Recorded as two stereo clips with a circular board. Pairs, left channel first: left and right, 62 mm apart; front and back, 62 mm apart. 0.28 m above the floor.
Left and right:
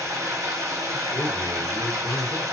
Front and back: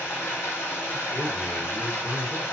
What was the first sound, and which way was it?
Running water, 50° right.